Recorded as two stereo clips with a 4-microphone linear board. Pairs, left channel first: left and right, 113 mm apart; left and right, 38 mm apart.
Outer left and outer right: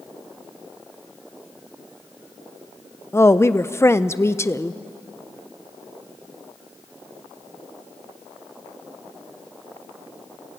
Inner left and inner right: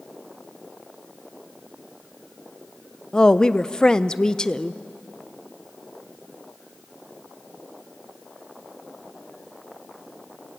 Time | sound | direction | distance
3.1 | a woman speaking | 20° left (ahead or behind) | 0.6 m